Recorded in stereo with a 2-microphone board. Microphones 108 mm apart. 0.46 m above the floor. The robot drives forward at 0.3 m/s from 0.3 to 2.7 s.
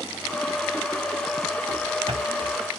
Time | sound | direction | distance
1.7 | running footsteps | 50° right (ahead or behind) | 0.7 m